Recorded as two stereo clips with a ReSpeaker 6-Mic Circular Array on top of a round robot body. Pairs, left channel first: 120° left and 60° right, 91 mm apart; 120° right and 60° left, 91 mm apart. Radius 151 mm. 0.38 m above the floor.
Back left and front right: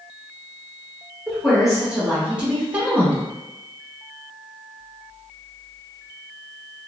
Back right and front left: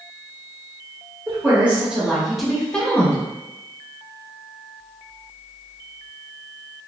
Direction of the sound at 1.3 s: 25° left.